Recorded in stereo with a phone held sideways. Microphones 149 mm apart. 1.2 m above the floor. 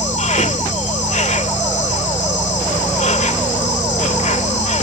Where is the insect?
55° left (ahead or behind).